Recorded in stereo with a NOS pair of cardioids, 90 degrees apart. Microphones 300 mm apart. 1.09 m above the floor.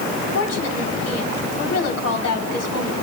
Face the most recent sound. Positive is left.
turn(degrees=60)